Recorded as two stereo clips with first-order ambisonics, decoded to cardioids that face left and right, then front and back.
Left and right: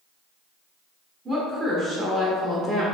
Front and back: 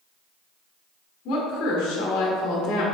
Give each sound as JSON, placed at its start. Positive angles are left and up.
{"t": 1.2, "sound": "a woman speaking", "azimuth_deg": -25, "distance_m": 1.6}